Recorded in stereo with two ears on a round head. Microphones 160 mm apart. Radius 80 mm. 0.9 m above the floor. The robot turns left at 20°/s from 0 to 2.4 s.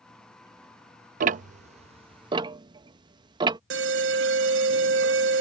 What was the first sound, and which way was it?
Ticking, 45° right (ahead or behind).